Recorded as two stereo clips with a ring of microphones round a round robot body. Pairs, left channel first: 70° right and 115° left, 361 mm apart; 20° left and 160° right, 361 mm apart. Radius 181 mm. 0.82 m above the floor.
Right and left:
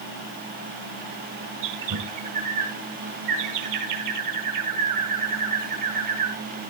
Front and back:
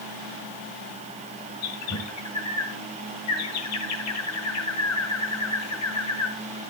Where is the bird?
70° left, 1.8 m.